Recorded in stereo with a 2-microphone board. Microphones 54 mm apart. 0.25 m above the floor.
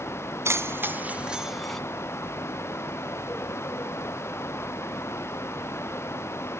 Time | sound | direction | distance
0.5 | keys jangling | 55° right (ahead or behind) | 1.5 m